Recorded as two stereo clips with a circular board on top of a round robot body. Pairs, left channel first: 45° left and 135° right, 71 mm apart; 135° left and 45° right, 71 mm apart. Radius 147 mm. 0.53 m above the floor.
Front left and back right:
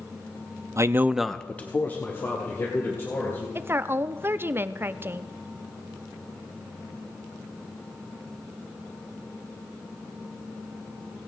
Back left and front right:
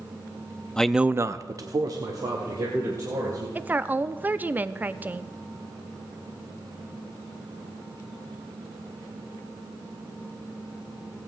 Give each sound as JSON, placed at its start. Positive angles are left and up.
{"t": 0.8, "sound": "a man speaking", "azimuth_deg": -150, "distance_m": 0.8}
{"t": 3.5, "sound": "a woman speaking", "azimuth_deg": -95, "distance_m": 0.8}